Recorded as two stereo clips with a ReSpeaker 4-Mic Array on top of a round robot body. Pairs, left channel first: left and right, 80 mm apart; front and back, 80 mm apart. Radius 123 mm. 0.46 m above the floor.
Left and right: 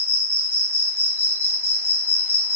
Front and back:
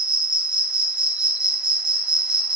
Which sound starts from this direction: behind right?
An insect, at 0.0 s.